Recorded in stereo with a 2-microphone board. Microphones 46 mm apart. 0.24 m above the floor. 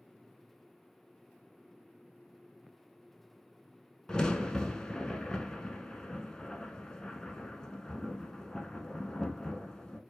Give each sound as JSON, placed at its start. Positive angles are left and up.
{"t": 4.1, "sound": "a crack", "side_deg": 15, "distance_m": 0.6}